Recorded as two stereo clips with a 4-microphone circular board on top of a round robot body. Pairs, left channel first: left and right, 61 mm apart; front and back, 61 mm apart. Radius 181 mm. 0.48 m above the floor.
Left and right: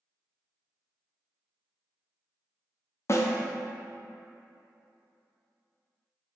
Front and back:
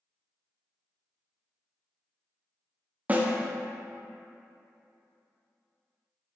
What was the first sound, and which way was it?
A snare drum, 120° left.